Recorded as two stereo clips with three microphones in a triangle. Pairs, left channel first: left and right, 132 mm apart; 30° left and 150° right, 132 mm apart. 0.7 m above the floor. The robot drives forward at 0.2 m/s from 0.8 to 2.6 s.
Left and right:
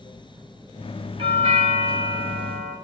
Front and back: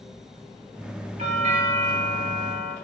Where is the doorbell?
130° right, 3 m; by 2.8 s 135° right, 3 m.